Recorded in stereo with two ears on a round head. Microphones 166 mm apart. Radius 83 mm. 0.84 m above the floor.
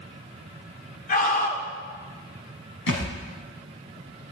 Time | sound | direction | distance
1.1 | a scream | 50° left (ahead or behind) | 2.5 m
2.9 | a thud | 80° left | 3.5 m